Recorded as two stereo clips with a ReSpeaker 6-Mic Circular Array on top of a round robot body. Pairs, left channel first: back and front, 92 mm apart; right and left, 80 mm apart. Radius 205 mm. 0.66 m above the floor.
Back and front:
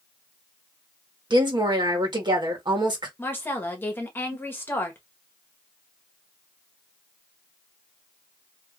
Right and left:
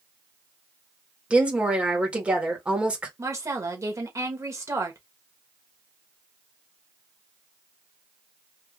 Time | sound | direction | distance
1.3 | a woman speaking | 20° left | 1.8 m
3.2 | a woman speaking | 120° left | 1.5 m